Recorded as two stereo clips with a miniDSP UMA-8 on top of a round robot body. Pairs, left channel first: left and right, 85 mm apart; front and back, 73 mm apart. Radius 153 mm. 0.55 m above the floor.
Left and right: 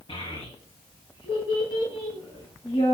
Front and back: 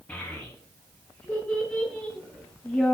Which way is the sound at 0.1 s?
75° left.